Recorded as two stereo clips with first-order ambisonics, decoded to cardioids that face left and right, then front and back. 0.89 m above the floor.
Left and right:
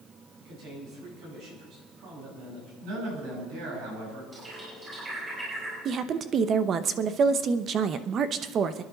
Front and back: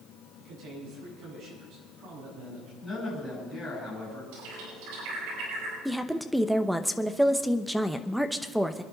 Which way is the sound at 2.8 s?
85° right.